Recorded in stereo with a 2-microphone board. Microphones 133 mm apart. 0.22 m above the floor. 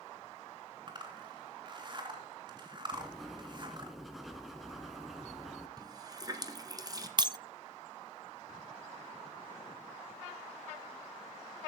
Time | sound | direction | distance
0.9 | a zipper | 35° right (ahead or behind) | 3 m
2.9 | writing | centre (ahead or behind) | 1.8 m
5.8 | a running tap | 30° right (ahead or behind) | 1.8 m
7.2 | breaking glass | 35° right (ahead or behind) | 0.5 m